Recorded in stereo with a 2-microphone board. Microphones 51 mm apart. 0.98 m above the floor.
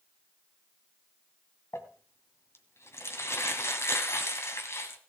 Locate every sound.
1.7 s crumpling: 65° left (ahead or behind), 2.0 m